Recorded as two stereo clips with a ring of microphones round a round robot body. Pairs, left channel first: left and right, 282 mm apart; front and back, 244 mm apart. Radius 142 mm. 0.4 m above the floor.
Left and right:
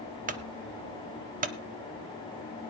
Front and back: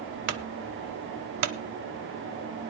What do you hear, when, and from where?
0.3 s a clunk: 155° right, 0.6 m